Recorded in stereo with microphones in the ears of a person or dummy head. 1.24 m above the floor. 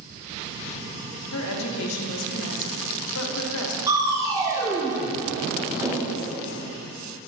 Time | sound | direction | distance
1.3 | a woman speaking | 85° left | 1.0 m
3.9 | crushing | 15° right (ahead or behind) | 0.7 m